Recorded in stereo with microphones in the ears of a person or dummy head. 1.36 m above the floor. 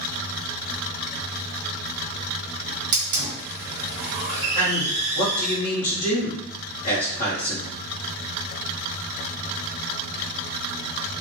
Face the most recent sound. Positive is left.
turn(degrees=45)  # may be behind; listen again after turning